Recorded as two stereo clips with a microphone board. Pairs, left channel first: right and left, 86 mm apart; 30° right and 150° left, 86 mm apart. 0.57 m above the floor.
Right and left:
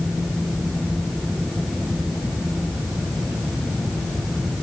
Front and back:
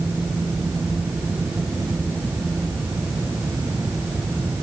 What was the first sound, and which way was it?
Only background noise.